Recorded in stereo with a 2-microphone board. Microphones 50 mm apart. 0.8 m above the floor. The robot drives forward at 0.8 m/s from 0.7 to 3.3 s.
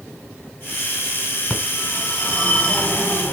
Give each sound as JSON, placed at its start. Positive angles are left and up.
{"t": 1.5, "sound": "a phone ringing", "side_deg": 20, "distance_m": 5.5}